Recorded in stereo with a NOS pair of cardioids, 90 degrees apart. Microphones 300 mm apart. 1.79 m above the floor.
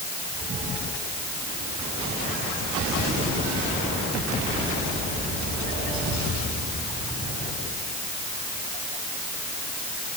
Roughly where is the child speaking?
No child speaking in this recording.